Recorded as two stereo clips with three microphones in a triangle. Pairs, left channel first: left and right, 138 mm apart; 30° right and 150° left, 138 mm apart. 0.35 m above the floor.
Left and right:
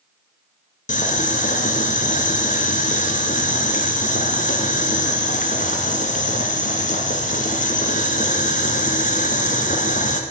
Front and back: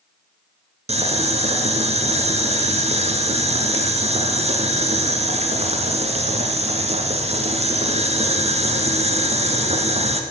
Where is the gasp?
No gasp in this recording.